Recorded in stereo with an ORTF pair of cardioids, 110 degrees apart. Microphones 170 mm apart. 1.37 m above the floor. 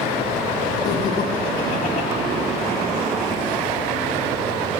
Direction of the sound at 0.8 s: 40° left.